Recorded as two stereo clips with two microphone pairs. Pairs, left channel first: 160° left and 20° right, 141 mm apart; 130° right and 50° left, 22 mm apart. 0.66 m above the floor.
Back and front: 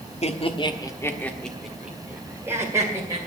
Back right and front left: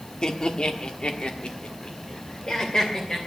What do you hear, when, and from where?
0.2 s laughter: 170° right, 1.3 m; by 3.2 s 85° right, 2.5 m